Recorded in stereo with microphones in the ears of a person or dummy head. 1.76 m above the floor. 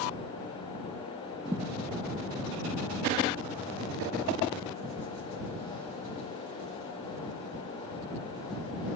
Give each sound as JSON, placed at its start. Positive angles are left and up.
{"t": 1.4, "sound": "a thud", "side_deg": -15}